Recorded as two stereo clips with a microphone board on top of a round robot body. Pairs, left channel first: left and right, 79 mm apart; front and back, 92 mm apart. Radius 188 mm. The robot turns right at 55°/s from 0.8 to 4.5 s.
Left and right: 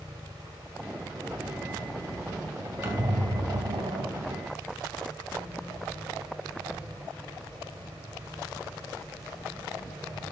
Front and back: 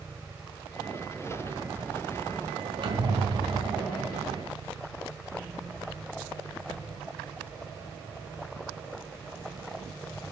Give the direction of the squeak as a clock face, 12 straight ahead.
5 o'clock.